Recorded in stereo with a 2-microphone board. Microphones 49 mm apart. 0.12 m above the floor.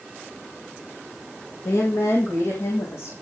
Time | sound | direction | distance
1.6 | a woman speaking | 70° left (ahead or behind) | 5.5 m